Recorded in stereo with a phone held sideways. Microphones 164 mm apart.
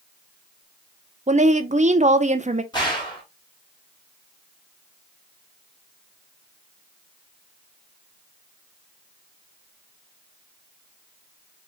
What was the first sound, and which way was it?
A woman speaking, 45° right (ahead or behind).